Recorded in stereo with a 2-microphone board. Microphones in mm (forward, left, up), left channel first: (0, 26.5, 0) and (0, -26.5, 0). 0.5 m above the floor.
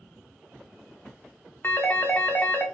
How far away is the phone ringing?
About 0.6 m.